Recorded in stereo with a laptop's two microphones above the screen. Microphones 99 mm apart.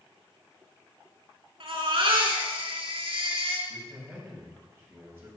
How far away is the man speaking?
About 4.5 m.